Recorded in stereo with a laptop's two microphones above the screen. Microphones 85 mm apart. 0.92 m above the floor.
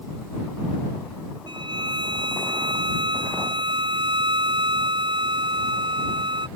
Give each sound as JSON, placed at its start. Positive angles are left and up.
{"t": 1.5, "sound": "a violin", "side_deg": -70}